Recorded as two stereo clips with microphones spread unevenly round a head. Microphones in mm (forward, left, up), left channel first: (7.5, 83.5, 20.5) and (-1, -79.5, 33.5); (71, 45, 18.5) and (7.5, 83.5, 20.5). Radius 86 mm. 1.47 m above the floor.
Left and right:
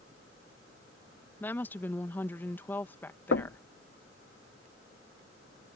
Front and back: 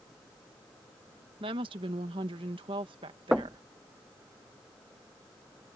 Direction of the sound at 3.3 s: 70° left.